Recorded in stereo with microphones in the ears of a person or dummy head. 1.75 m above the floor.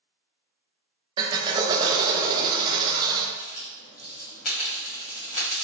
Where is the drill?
25° right (ahead or behind), 0.7 m.